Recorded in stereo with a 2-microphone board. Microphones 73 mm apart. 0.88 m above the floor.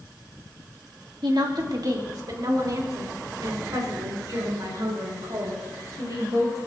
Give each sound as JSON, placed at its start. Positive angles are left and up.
{"t": 1.2, "sound": "a woman speaking", "side_deg": -65, "distance_m": 1.6}